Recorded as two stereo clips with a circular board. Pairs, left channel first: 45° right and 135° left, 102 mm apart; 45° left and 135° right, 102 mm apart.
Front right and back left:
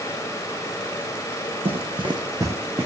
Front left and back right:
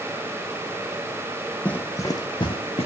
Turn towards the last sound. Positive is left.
turn(degrees=65)